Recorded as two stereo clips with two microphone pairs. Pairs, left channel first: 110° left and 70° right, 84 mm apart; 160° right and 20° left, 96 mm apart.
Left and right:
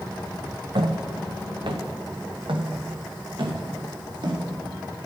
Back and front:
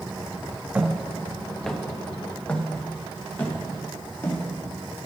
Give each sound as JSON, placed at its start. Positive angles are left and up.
{"t": 0.8, "sound": "footsteps", "azimuth_deg": -55, "distance_m": 1.2}